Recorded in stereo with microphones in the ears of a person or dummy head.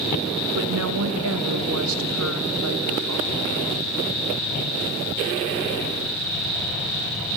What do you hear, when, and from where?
0.6 s a woman speaking: 75° right (ahead or behind), 1.2 m